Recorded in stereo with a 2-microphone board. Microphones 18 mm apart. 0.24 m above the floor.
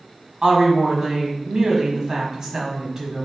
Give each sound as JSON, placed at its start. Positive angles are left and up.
{"t": 0.4, "sound": "a woman speaking", "side_deg": -35, "distance_m": 1.4}